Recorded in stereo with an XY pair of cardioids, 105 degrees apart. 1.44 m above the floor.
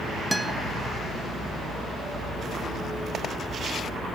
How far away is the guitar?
About 1.5 m.